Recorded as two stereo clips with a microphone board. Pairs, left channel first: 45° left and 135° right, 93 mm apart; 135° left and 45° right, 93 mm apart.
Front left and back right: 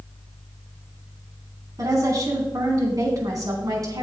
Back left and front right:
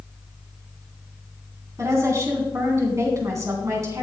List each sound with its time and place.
1.8 s a woman speaking: 95° right, 3 m